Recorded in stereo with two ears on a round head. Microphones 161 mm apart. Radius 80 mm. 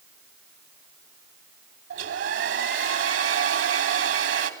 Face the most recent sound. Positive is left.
turn(degrees=-75)  # may be behind; listen again after turning